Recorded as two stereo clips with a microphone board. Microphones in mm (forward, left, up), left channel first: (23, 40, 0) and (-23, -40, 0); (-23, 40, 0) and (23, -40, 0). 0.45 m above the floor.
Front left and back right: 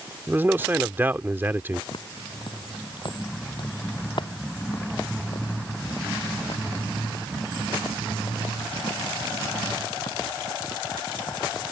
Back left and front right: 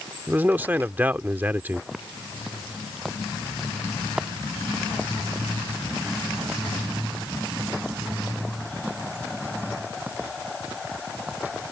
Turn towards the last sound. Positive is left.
turn(degrees=15)